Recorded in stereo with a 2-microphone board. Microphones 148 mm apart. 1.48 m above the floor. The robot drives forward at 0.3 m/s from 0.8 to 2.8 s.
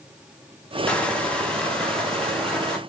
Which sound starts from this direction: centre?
Crushing, at 0.9 s.